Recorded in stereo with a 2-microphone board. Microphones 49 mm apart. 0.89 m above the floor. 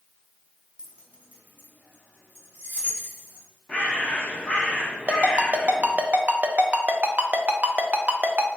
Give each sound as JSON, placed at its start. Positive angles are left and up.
{"t": 0.8, "sound": "keys jangling", "side_deg": -20, "distance_m": 0.7}
{"t": 3.7, "sound": "a bird", "side_deg": 20, "distance_m": 0.9}
{"t": 5.1, "sound": "a ringtone", "side_deg": -35, "distance_m": 0.5}